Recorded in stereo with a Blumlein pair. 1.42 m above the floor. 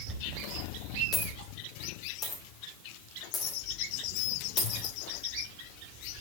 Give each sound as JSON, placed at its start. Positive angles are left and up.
{"t": 0.1, "sound": "a dropped coin", "azimuth_deg": 30, "distance_m": 2.5}